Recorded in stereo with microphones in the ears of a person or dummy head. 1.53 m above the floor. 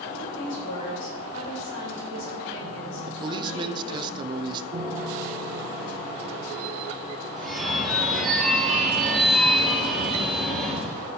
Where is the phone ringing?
5° left (ahead or behind), 1.6 m.